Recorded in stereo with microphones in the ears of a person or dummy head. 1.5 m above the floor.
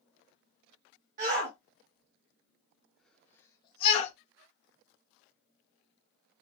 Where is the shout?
45° right (ahead or behind), 1.3 m; by 4.1 s 40° left (ahead or behind), 0.9 m.